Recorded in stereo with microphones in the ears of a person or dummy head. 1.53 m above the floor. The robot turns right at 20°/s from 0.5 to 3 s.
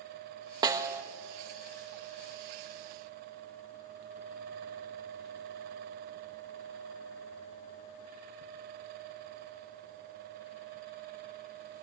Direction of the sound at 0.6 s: 20° right (ahead or behind).